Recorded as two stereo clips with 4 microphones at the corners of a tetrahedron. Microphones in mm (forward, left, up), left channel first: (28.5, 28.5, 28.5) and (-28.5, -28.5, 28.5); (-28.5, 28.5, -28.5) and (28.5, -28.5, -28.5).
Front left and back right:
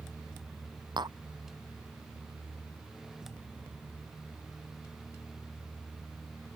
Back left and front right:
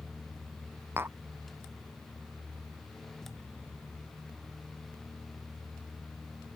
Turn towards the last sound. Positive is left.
turn(degrees=-105)